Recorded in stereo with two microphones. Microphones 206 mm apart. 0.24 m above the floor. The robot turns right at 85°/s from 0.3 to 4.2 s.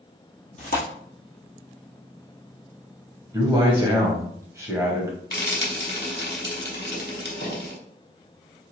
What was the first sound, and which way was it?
Tearing paper, 35° left (ahead or behind).